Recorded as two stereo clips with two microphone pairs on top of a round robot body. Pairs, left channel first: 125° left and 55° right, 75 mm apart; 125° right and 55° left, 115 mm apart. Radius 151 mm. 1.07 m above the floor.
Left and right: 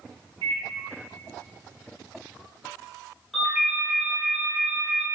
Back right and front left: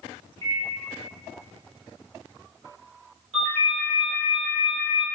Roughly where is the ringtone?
Ahead left.